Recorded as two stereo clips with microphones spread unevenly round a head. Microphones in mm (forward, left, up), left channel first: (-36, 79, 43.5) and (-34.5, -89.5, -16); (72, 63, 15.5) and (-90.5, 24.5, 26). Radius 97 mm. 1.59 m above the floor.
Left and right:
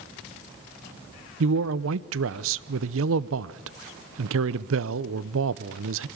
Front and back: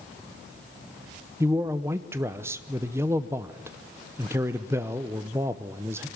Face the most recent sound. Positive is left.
turn(degrees=-90)